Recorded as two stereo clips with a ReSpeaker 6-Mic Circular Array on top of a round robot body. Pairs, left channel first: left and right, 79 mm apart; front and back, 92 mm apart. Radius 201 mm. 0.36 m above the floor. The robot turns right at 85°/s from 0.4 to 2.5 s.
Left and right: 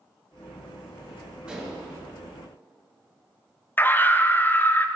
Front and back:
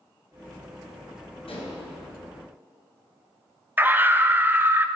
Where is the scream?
130° left, 1.0 m.